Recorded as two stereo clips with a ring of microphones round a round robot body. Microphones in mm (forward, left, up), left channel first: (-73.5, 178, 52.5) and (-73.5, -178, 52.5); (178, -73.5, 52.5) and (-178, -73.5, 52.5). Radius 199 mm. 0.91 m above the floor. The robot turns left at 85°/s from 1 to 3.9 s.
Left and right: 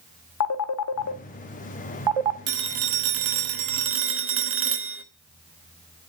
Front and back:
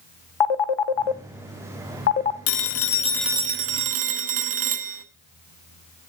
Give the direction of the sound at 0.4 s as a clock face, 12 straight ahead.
11 o'clock.